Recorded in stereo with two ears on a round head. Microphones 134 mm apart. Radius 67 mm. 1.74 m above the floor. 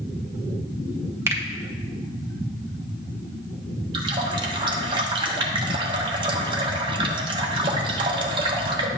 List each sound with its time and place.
1.3 s a finger snap: 15° right (ahead or behind), 1.1 m
3.9 s a running tap: 30° right (ahead or behind), 1.0 m